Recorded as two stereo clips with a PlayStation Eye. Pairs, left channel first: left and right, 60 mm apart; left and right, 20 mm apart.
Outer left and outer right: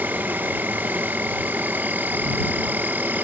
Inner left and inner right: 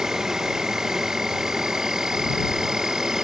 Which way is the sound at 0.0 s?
30° right (ahead or behind).